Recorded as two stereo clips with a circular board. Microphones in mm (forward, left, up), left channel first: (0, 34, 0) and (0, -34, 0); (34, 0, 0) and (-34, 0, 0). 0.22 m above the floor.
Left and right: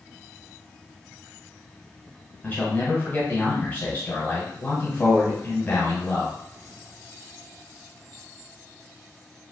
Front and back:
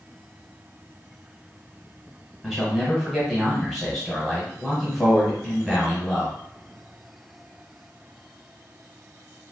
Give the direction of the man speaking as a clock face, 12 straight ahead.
9 o'clock.